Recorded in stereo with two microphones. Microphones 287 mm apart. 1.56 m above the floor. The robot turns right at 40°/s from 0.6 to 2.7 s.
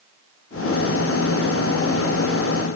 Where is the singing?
No singing in this recording.